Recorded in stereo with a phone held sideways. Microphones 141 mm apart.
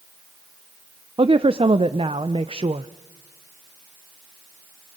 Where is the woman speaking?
40° right (ahead or behind), 0.6 m.